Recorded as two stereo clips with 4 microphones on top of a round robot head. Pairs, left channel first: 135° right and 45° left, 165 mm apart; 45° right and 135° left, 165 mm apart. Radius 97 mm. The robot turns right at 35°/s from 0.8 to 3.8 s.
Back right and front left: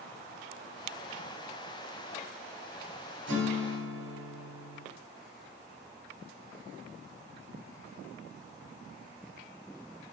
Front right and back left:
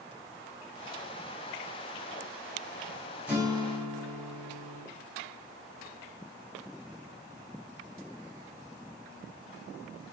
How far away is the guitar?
About 2.0 m.